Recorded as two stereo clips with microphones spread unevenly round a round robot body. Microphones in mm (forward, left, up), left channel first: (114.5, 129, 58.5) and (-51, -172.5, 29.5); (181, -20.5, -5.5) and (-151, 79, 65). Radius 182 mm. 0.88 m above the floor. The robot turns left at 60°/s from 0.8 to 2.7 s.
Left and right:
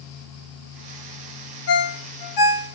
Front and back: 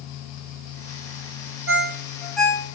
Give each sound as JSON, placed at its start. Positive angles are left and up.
{"t": 1.7, "sound": "a ringtone", "azimuth_deg": 105, "distance_m": 0.6}